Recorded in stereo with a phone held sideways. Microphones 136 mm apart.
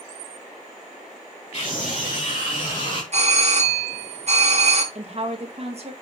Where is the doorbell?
50° right (ahead or behind), 1.8 m.